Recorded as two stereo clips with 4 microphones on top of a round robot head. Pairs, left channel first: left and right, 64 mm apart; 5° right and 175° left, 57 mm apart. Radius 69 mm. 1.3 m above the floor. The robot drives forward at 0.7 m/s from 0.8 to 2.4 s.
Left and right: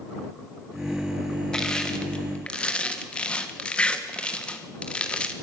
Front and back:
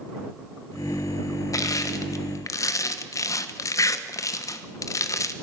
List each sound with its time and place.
1.5 s crushing: 10° left, 1.8 m; by 5.3 s 15° left, 1.2 m